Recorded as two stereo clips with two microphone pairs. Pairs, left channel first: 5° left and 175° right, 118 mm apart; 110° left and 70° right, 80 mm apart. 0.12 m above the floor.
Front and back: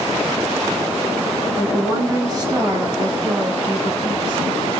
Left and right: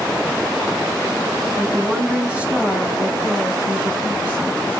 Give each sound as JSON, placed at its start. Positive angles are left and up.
{"t": 1.6, "sound": "a woman speaking", "azimuth_deg": -145, "distance_m": 1.2}